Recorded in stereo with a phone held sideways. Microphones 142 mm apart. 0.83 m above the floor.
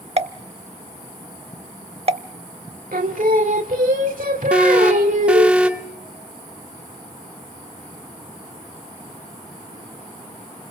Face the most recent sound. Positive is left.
turn(degrees=-5)  # may be behind; listen again after turning